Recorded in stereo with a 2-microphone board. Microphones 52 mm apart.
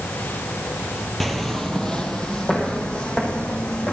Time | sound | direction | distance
1.2 | footsteps | centre (ahead or behind) | 2 m